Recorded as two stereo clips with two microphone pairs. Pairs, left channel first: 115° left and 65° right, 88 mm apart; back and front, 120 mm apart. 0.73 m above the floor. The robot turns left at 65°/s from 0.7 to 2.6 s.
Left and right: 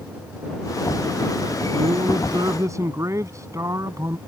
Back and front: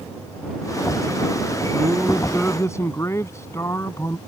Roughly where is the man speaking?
Ahead right.